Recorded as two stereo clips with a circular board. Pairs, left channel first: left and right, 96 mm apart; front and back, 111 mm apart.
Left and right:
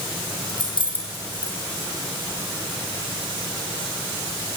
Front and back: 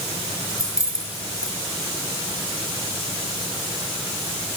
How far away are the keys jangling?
About 5 m.